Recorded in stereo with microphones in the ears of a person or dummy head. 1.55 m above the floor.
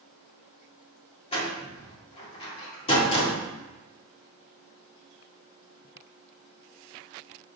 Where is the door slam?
30° left (ahead or behind), 2.5 m.